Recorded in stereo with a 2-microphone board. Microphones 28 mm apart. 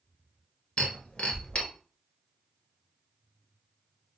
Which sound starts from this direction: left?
Breaking glass, at 0.8 s.